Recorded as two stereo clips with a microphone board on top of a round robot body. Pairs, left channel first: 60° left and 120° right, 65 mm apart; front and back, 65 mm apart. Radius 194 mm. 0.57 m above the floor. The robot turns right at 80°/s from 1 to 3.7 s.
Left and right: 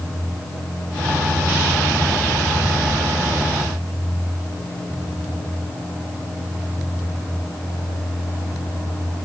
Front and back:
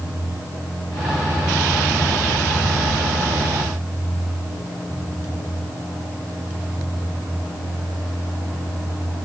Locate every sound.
Only background noise.